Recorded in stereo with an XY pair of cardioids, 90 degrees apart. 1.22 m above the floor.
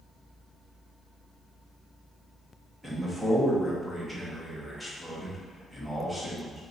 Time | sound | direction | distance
2.8 | a man speaking | 10° right | 1.3 m